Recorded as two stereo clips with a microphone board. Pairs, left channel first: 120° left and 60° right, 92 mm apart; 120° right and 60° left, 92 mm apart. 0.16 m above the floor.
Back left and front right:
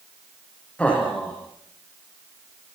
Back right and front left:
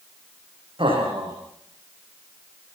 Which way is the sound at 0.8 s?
45° left.